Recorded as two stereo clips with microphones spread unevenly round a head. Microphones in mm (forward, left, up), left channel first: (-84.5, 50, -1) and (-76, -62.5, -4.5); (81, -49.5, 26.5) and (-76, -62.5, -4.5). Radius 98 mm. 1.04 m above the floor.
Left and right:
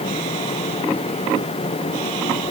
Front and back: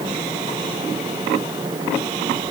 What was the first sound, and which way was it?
Only background noise.